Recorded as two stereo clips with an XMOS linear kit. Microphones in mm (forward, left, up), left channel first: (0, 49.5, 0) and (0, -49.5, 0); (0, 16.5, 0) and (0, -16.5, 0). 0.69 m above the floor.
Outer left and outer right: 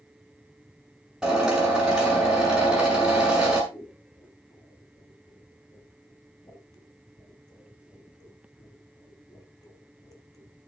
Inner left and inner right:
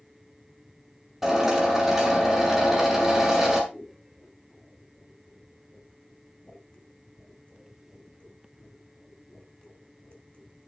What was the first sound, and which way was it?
A drill, 5° right (ahead or behind).